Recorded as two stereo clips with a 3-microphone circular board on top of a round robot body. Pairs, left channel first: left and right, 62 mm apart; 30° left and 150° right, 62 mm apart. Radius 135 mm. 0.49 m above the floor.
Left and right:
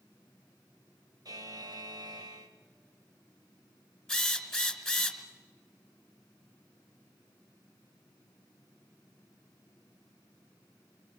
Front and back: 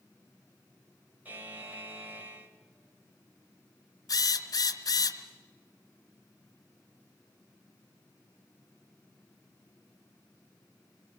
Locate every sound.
1.2 s a buzzer: 90° right, 3 m
4.1 s a drill: 5° left, 2 m